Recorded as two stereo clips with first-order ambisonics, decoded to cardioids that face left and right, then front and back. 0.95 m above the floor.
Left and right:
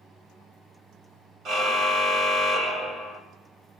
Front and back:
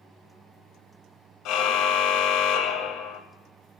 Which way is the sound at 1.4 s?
35° right.